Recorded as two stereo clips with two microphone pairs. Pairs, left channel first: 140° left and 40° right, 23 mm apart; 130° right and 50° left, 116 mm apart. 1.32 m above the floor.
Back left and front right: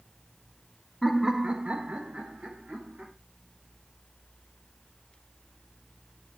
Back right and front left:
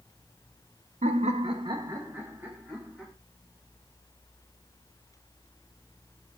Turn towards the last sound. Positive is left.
turn(degrees=-35)